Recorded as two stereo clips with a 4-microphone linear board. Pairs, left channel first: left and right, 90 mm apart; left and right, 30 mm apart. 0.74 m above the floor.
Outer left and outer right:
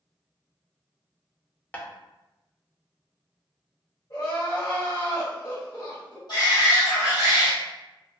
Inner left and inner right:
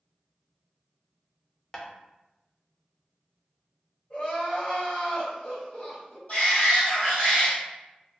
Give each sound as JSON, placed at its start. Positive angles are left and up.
{"t": 1.7, "sound": "tapping", "side_deg": 20, "distance_m": 0.5}
{"t": 4.1, "sound": "crying", "side_deg": 45, "distance_m": 1.8}
{"t": 6.3, "sound": "a shout", "side_deg": 50, "distance_m": 1.3}